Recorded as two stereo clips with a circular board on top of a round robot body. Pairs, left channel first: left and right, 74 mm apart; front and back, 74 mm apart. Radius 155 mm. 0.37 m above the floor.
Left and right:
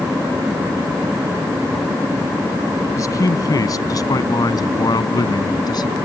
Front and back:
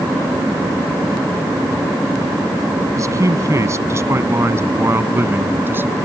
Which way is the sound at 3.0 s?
135° left.